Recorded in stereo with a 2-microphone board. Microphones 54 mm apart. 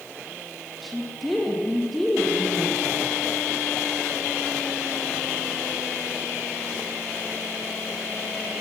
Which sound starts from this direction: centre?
A woman speaking, at 0.8 s.